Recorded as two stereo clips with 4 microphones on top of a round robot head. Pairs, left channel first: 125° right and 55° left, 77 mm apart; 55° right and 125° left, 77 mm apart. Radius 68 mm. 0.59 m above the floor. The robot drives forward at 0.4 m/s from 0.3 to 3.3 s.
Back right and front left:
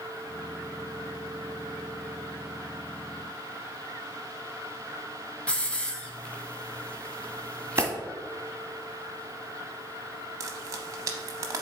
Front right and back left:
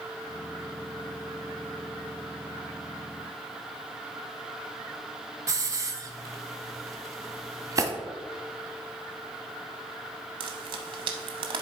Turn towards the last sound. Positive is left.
turn(degrees=105)